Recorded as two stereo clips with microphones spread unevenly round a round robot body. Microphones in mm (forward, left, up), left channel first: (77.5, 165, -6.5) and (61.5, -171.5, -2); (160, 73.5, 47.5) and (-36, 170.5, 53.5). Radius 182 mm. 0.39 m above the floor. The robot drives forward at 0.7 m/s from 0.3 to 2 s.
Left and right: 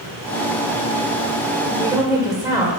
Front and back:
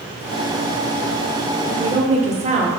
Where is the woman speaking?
160° right, 1.0 m; by 2.7 s 170° right, 1.2 m.